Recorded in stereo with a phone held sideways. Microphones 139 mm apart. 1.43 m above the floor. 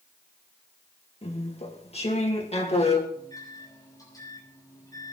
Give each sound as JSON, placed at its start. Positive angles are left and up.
{"t": 1.2, "sound": "chewing", "side_deg": 45, "distance_m": 2.0}
{"t": 3.1, "sound": "a microwave", "side_deg": 25, "distance_m": 6.5}